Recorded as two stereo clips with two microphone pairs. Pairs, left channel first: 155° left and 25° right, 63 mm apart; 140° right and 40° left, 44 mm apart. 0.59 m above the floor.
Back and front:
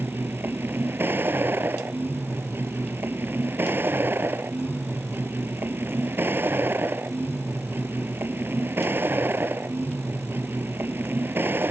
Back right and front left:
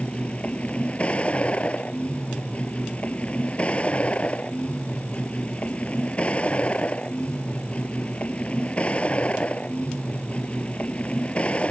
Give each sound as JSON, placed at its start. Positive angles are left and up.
{"t": 0.0, "sound": "a vehicle", "azimuth_deg": -80}